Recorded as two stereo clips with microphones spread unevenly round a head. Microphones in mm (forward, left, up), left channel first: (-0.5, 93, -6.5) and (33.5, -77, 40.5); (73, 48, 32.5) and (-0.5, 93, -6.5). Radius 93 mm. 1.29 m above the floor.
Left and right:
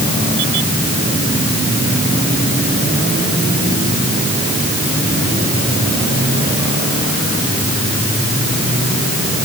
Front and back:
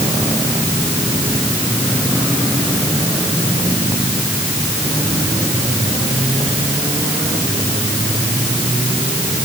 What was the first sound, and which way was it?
Only background noise.